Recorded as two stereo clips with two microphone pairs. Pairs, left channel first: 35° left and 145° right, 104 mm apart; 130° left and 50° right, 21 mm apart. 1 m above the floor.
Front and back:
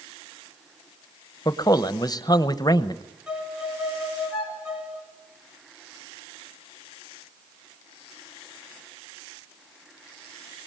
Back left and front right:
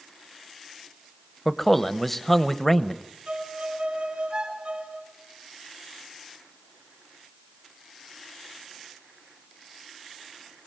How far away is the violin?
About 5.5 m.